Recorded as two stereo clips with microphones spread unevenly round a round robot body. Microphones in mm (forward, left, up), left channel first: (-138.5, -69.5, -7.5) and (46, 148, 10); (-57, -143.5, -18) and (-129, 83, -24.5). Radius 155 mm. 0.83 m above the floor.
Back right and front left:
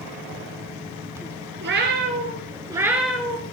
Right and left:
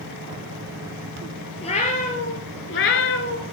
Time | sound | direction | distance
1.6 | a cat meowing | 5° right | 1.8 m